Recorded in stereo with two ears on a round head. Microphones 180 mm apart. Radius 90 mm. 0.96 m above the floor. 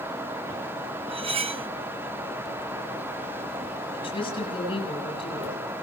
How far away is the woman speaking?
About 7.5 m.